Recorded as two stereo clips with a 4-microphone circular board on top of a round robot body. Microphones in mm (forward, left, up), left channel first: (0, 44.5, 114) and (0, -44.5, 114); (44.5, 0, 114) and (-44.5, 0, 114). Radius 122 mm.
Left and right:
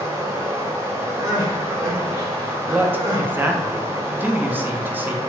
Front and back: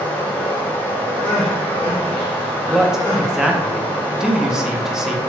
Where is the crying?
30° right, 0.8 m.